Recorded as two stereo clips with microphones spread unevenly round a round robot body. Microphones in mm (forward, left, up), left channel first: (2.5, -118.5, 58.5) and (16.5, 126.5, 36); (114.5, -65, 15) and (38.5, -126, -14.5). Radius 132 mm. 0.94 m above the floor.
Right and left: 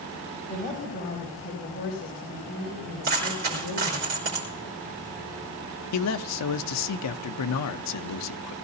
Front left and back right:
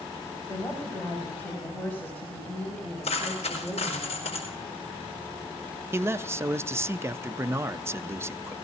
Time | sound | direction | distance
0.5 | a woman speaking | 30° right | 5.5 m
3.0 | a dropped coin | 50° left | 5 m
5.9 | a man speaking | 85° right | 0.7 m